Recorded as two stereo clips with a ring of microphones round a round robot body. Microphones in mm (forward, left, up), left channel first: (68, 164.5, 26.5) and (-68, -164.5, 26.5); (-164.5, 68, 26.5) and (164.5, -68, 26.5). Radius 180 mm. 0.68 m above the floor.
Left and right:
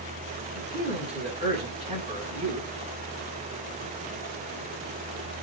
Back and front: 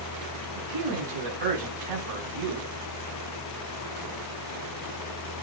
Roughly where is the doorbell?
I don't hear a doorbell.